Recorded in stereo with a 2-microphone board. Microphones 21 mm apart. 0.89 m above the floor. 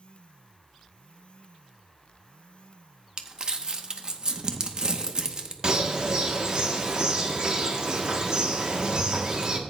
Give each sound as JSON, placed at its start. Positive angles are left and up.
{"t": 3.2, "sound": "crumpling", "side_deg": -35, "distance_m": 0.8}
{"t": 5.6, "sound": "a bird", "side_deg": -35, "distance_m": 1.0}